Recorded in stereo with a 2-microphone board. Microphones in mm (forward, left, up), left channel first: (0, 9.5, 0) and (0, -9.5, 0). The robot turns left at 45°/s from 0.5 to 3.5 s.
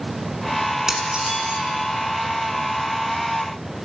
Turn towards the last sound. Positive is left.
turn(degrees=-145)